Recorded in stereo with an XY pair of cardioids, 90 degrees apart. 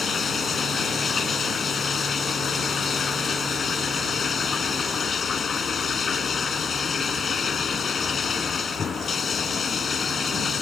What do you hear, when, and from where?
0.0 s running water: 50° left